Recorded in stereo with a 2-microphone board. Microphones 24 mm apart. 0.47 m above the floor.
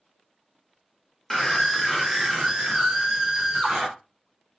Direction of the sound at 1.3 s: 10° left (ahead or behind).